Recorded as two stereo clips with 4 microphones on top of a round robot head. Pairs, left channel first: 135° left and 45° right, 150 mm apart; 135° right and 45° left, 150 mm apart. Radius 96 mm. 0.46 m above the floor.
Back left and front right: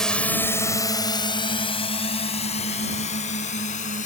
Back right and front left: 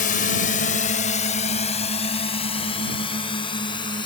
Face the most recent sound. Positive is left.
turn(degrees=170)